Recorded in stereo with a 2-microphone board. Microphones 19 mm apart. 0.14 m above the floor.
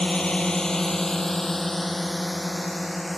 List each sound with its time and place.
0.0 s a drone: 60° left (ahead or behind); by 3.2 s 5° right (ahead or behind)